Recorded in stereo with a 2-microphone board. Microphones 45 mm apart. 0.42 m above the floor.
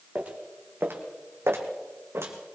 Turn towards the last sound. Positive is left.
turn(degrees=-70)  # may be behind; listen again after turning